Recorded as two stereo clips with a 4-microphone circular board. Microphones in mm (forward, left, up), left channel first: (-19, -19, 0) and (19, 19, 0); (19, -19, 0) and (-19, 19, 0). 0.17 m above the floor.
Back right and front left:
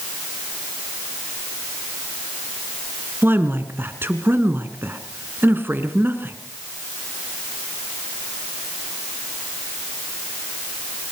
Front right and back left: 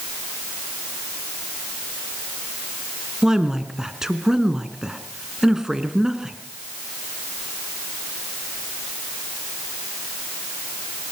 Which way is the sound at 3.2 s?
60° left.